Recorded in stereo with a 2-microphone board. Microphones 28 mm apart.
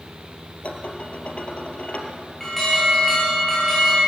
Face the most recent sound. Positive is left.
turn(degrees=10)  # may be behind; listen again after turning